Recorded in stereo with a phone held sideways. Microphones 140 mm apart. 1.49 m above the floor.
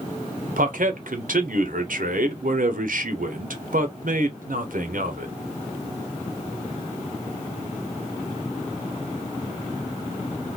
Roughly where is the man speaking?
Right.